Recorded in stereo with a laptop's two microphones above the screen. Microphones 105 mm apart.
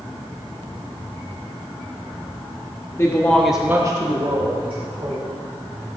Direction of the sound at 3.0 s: 30° left (ahead or behind).